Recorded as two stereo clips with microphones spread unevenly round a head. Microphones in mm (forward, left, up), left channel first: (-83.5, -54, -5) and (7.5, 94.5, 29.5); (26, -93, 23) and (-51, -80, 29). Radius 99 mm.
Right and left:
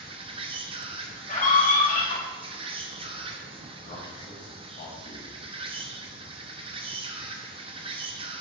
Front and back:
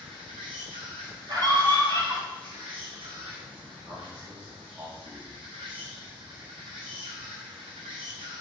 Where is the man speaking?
140° right, 2.5 m.